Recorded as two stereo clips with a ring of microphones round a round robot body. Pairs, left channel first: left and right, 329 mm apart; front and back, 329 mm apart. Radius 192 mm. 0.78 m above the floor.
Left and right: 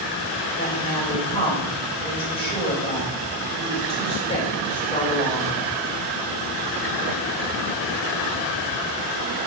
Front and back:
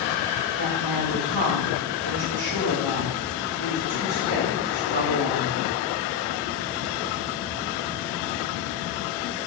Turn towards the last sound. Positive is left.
turn(degrees=165)